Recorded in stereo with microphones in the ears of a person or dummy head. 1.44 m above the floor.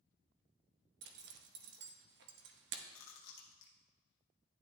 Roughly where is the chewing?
Left.